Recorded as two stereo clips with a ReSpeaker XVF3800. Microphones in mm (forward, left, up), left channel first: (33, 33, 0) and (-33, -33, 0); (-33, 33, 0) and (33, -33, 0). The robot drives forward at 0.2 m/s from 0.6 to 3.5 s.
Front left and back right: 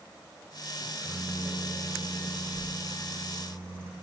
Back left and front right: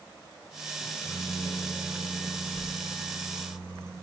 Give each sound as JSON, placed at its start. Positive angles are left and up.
{"t": 0.8, "sound": "a microwave", "azimuth_deg": 160, "distance_m": 3.0}